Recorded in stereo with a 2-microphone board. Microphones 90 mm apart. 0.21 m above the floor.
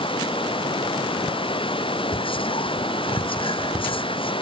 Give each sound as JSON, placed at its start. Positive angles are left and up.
{"t": 0.0, "sound": "running water", "side_deg": 75}
{"t": 2.1, "sound": "whispering", "side_deg": 75}